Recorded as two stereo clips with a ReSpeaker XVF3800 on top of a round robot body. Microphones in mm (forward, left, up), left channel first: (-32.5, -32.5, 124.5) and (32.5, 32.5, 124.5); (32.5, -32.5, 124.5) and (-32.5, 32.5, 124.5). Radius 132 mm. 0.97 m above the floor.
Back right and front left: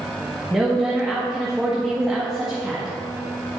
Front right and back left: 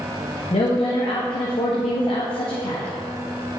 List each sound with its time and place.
0.5 s a woman speaking: 45° right, 1.5 m